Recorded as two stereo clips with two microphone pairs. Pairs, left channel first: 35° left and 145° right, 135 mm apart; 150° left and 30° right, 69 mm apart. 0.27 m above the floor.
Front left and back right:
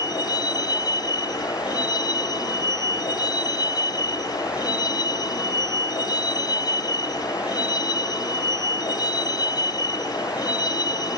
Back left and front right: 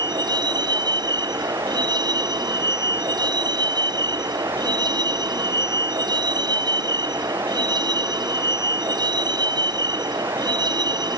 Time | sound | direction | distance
0.0 | a vehicle | 30° right | ?